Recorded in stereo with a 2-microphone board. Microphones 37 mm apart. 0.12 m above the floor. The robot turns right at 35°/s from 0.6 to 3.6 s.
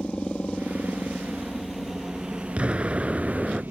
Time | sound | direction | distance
0.0 | a helicopter | 30° left (ahead or behind) | ?
2.6 | an explosion | 60° right | ?